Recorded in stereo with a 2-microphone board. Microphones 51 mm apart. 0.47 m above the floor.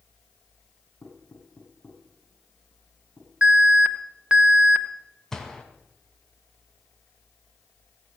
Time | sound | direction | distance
1.0 | knocking | 30° left (ahead or behind) | 7.5 m
3.4 | an alarm | 20° right (ahead or behind) | 1.1 m
5.3 | a gunshot | 10° left (ahead or behind) | 1.9 m